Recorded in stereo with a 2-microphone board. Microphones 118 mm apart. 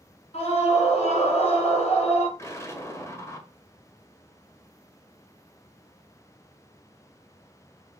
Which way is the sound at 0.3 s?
60° left (ahead or behind).